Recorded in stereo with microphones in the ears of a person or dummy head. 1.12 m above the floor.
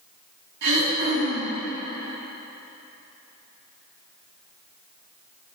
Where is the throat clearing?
60° right (ahead or behind), 2.5 m.